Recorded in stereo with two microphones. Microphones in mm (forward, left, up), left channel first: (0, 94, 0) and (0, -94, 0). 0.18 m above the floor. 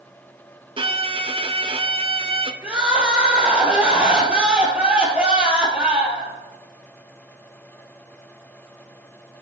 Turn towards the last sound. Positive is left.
turn(degrees=-5)  # may be behind; listen again after turning